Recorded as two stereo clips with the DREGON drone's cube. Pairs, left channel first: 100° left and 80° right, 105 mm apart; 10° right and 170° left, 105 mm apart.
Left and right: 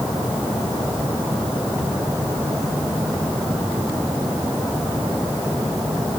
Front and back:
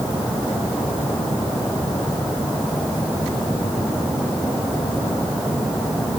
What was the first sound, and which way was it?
Only background noise.